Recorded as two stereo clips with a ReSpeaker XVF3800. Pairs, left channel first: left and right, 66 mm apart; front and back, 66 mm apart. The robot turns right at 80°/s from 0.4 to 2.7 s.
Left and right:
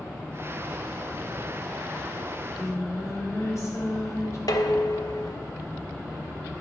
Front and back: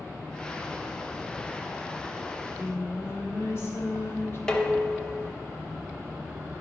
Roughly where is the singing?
Ahead.